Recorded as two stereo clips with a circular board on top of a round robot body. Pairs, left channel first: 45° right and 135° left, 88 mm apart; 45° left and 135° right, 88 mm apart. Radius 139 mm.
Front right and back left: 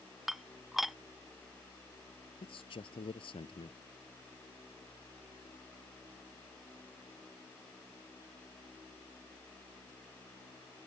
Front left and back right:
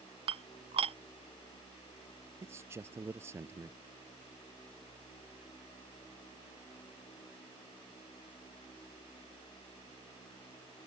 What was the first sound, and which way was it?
Dishes clattering, 135° right.